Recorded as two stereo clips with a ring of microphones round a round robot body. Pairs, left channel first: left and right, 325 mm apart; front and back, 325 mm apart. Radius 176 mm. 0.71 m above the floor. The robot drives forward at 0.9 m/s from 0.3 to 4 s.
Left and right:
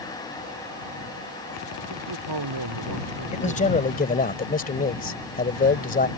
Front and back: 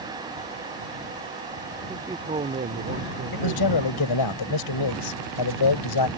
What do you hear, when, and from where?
1.9 s a man speaking: 100° right; by 4.3 s 140° right
3.3 s a man speaking: 20° left; by 6.1 s 25° left